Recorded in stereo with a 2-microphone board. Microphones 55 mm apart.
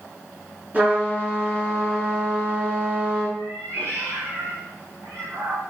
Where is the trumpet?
35° right (ahead or behind), 6 m.